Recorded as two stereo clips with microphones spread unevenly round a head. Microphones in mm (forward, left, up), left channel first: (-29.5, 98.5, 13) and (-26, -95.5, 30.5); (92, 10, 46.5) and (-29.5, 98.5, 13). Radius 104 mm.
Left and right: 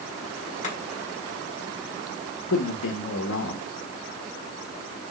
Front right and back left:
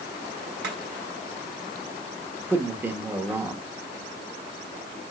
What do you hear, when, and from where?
0.6 s chopping: 145° left, 3.5 m
2.5 s a man speaking: 70° left, 1.3 m